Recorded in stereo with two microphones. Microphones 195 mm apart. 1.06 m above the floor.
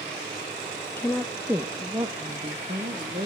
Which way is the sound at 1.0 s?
15° left (ahead or behind).